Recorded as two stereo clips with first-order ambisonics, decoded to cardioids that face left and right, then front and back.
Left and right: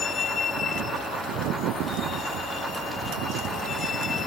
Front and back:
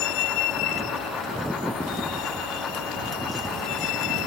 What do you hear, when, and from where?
0.0 s a vehicle: 25° left